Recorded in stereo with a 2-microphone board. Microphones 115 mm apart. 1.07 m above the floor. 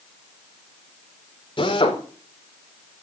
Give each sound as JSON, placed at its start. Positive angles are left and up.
{"t": 1.6, "sound": "a drill", "side_deg": 45, "distance_m": 4.5}